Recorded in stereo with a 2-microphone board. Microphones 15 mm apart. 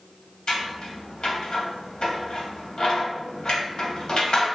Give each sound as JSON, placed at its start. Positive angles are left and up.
{"t": 0.5, "sound": "scissors", "side_deg": 65, "distance_m": 0.6}